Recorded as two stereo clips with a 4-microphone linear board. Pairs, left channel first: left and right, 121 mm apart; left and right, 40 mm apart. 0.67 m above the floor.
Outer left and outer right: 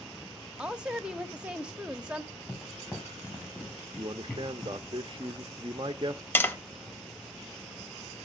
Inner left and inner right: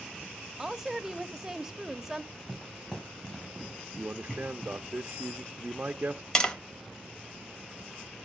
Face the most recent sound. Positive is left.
turn(degrees=15)  # may be behind; listen again after turning